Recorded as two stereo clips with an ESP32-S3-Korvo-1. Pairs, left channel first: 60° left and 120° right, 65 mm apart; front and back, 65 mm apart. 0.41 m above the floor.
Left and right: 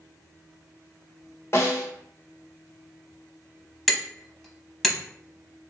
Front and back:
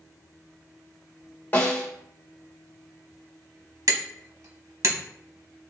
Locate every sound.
1.5 s a snare drum: 50° left, 1.2 m
3.9 s hammering: 145° left, 0.8 m